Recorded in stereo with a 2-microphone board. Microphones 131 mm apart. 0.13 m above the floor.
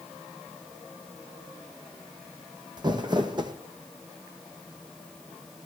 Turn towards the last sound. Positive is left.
turn(degrees=-35)  # may be behind; listen again after turning